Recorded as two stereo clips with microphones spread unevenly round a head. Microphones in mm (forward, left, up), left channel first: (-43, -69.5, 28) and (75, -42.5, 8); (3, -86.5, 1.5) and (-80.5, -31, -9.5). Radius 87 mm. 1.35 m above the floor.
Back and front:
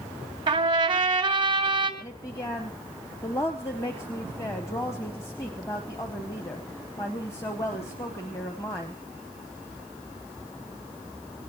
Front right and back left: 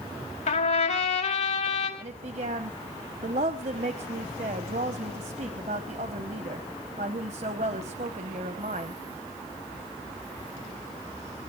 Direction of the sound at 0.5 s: 40° right.